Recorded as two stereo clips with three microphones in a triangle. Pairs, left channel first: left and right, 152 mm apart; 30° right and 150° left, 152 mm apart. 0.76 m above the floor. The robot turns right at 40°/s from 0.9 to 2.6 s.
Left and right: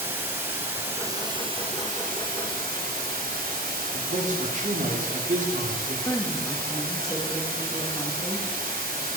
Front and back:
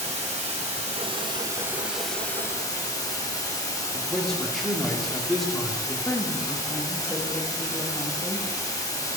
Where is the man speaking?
120° right, 1.6 m.